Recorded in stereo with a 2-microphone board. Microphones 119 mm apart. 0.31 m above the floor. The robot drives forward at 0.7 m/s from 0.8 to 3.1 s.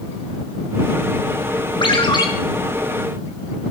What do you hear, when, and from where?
1.8 s a ringtone: 45° left (ahead or behind), 2 m; by 2.3 s 40° left (ahead or behind), 2.5 m